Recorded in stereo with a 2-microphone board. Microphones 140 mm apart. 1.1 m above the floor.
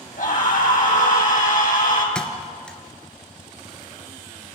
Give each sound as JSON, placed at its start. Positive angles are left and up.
{"t": 0.2, "sound": "a scream", "side_deg": 70, "distance_m": 7.5}
{"t": 2.1, "sound": "a thud", "side_deg": 5, "distance_m": 2.0}